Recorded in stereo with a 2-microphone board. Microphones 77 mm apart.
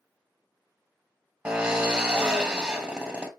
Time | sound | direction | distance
1.4 | a drill | 15° right (ahead or behind) | 1.2 m